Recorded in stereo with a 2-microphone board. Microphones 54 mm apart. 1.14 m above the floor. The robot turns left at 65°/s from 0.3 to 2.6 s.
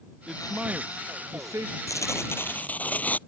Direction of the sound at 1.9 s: 80° left.